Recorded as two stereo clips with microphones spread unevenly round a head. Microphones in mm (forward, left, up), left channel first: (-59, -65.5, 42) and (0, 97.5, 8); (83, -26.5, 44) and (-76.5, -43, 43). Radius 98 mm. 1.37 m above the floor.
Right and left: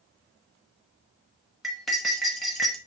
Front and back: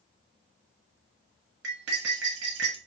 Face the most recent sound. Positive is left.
turn(degrees=170)